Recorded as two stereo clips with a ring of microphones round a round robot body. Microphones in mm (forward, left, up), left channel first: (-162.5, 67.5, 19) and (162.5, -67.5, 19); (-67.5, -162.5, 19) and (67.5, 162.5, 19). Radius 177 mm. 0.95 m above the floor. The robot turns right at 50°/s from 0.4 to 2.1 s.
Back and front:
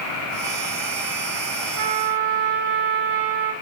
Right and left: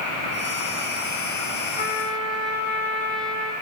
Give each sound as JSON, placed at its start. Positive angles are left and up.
{"t": 1.8, "sound": "a trumpet", "azimuth_deg": -40, "distance_m": 5.5}